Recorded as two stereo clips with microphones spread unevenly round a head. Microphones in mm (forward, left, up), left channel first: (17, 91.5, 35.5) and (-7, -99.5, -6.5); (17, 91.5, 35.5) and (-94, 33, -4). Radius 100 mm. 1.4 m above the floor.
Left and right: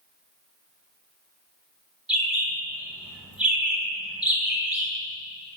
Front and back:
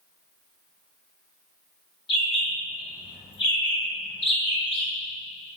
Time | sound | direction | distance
2.1 | a bird | 5° right | 1.6 m